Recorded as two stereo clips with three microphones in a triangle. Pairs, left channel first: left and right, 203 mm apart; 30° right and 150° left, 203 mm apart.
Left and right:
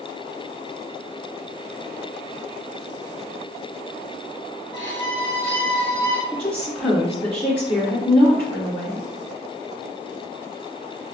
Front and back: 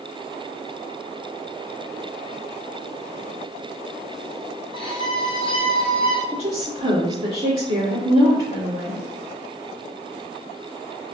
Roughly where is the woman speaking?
Behind.